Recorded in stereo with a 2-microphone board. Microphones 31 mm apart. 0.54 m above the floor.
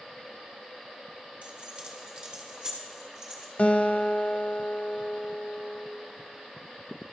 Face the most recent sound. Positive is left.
turn(degrees=50)  # may be behind; listen again after turning